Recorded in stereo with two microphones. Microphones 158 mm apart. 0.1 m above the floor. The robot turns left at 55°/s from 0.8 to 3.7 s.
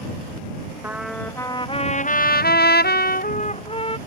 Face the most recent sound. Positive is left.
turn(degrees=35)